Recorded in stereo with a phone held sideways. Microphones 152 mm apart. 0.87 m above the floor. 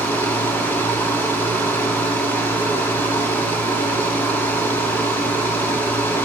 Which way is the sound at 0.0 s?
15° left (ahead or behind).